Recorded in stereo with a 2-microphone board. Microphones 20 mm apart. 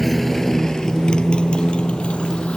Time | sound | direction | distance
0.0 | a motorcycle | 5° left (ahead or behind) | ?